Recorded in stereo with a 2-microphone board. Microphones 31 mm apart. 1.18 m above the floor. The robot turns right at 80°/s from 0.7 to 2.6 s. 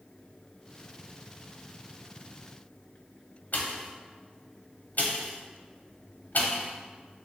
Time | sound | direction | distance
3.5 | a pop | 60° left (ahead or behind) | 0.6 m